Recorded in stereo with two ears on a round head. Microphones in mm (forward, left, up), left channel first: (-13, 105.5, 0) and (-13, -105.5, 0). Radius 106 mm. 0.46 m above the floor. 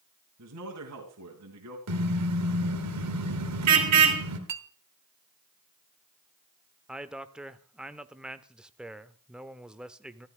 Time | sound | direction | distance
0.4 | a man speaking | 75° right (ahead or behind) | 3.5 m
1.9 | a car horn | 80° right | 3.5 m
4.5 | a clink | 55° right (ahead or behind) | 1.3 m
6.9 | a man speaking | 5° right (ahead or behind) | 0.9 m